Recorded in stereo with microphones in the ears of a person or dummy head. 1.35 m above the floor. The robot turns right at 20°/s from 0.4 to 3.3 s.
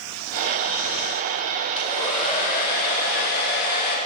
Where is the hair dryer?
35° left, 2 m; by 4.0 s 65° left, 2 m.